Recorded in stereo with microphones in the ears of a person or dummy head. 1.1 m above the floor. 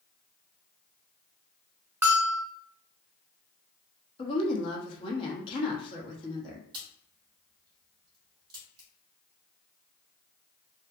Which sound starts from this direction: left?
A woman speaking, at 4.2 s.